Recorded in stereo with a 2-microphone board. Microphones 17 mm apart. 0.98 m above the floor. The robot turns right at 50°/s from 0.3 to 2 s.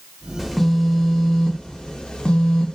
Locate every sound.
0.4 s a phone buzzing: straight ahead, 0.7 m; by 2.8 s 80° left, 0.7 m